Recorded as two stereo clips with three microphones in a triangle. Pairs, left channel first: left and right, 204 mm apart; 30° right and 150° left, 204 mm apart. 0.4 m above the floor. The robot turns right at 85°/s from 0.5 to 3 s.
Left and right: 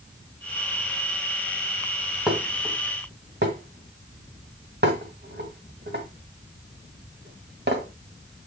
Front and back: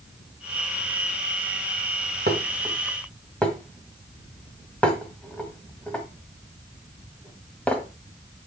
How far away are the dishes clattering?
About 1.6 m.